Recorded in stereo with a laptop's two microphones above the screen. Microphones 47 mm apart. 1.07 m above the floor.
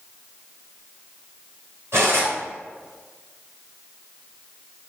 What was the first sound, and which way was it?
Cutlery clinking, 65° right (ahead or behind).